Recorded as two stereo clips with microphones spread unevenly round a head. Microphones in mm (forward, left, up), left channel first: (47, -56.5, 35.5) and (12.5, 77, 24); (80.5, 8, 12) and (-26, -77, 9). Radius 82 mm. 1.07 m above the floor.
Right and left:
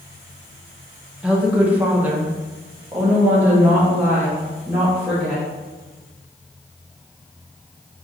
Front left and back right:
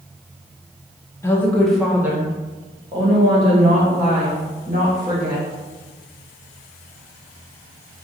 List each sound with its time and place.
1.2 s a woman speaking: 45° left, 0.7 m; by 5.5 s straight behind, 2.5 m